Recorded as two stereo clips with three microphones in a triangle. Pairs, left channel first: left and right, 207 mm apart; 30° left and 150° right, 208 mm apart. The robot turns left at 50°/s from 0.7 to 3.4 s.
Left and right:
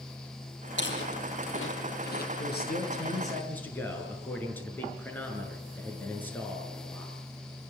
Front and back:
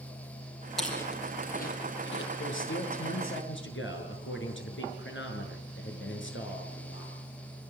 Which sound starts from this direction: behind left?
Chewing, at 0.8 s.